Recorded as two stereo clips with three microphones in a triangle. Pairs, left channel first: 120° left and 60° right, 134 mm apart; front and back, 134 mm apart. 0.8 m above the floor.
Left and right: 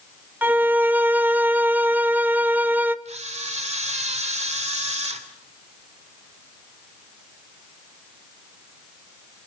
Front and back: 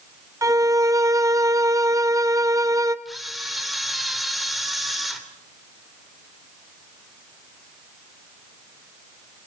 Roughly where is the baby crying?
No baby crying in this recording.